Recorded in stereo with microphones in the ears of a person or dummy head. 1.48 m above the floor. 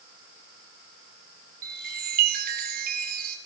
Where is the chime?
50° right (ahead or behind), 4.5 m.